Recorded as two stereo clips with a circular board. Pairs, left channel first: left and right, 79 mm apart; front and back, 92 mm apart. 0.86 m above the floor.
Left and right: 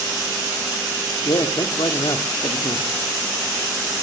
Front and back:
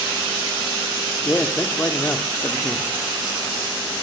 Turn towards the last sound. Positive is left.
turn(degrees=70)